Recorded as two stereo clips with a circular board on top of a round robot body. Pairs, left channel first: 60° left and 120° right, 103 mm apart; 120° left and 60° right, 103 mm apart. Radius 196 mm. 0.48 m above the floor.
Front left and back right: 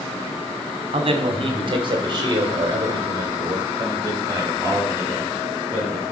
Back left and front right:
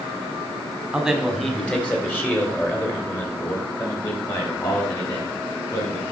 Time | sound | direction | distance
0.9 | a man speaking | 145° right | 1.7 m